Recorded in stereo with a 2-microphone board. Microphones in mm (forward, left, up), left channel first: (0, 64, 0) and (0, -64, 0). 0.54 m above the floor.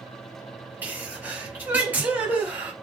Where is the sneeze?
15° right (ahead or behind), 2.5 m.